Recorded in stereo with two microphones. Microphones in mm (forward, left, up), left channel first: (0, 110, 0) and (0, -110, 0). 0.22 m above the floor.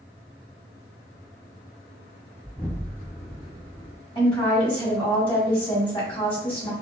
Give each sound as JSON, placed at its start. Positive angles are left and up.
{"t": 2.4, "sound": "an explosion", "side_deg": 5, "distance_m": 1.5}
{"t": 4.2, "sound": "a woman speaking", "side_deg": 25, "distance_m": 1.4}